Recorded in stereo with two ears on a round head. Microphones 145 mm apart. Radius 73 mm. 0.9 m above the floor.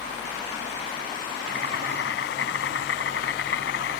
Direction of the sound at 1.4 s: 75° left (ahead or behind).